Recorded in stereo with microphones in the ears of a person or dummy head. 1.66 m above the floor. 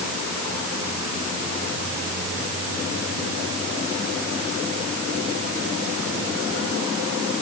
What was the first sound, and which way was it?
Only background noise.